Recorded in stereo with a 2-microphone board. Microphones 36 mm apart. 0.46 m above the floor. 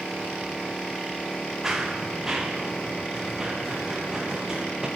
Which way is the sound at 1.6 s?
10° right (ahead or behind).